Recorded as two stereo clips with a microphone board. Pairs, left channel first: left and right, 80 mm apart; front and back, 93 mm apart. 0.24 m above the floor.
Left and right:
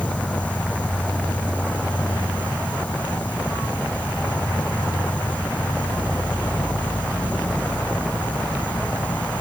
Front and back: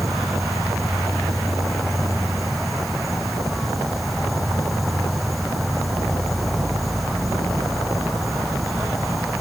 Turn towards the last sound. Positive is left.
turn(degrees=85)